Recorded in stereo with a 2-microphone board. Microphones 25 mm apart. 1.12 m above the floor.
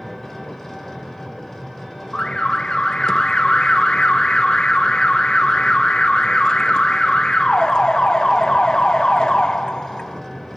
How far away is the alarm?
About 0.9 m.